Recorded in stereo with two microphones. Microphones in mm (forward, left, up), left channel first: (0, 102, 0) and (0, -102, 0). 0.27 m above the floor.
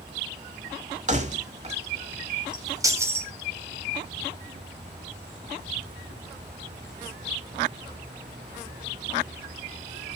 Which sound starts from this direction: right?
Keys jangling, at 1.1 s.